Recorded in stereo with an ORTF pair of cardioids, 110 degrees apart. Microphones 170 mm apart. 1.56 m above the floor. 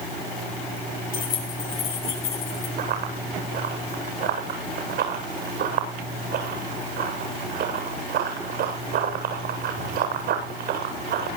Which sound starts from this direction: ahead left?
Keys jangling, at 1.1 s.